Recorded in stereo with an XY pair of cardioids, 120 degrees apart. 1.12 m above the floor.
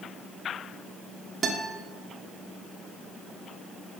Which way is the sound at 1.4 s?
45° right.